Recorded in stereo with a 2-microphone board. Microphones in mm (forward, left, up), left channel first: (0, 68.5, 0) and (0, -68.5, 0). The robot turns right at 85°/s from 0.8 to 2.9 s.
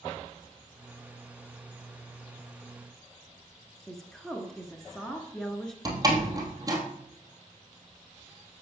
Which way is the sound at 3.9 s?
5° left (ahead or behind).